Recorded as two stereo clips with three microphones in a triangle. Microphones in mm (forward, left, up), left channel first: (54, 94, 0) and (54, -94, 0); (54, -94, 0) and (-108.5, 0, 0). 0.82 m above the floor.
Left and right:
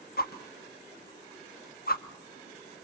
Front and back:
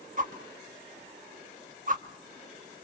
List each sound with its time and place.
0.2 s a whoosh: 115° left, 0.9 m